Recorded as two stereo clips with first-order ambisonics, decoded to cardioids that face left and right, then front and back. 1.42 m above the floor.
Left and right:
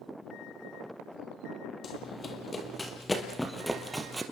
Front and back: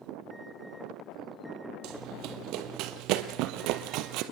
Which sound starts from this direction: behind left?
Running footsteps, at 1.8 s.